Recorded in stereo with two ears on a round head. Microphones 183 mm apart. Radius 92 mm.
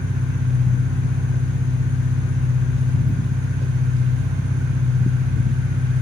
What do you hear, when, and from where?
0.0 s an engine running: 30° right (ahead or behind), 1.5 m